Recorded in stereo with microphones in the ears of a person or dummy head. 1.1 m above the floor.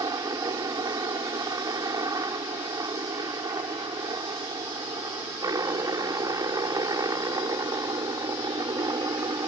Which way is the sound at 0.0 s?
20° right (ahead or behind).